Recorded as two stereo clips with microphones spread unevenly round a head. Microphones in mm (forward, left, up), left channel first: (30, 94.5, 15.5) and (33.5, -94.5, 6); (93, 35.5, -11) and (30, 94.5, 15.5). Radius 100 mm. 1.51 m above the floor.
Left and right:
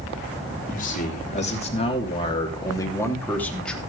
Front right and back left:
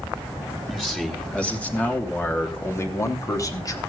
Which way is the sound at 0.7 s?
45° left.